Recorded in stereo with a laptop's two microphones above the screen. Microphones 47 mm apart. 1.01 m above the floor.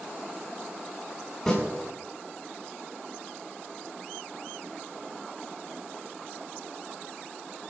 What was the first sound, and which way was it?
A snare drum, 10° left (ahead or behind).